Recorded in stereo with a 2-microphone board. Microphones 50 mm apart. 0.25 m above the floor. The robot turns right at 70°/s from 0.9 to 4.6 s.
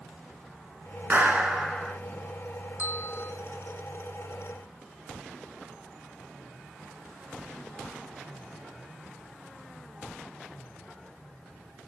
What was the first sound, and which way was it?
A clap, 40° right.